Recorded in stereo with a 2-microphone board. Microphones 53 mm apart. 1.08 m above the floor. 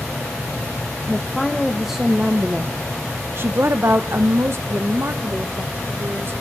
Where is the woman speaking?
5° left (ahead or behind), 1.3 m; by 6.3 s 45° right (ahead or behind), 1.9 m.